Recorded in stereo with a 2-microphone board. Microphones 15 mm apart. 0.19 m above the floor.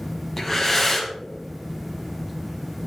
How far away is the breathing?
About 1.8 m.